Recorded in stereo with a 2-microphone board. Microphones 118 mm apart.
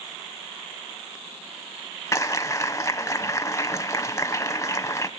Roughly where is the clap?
Left.